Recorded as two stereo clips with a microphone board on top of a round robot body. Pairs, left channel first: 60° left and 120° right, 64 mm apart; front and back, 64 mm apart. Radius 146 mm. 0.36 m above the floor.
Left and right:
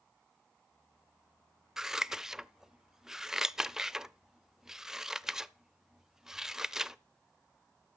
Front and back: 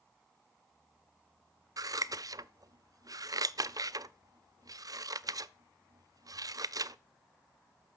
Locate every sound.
1.8 s scissors: 160° left, 0.5 m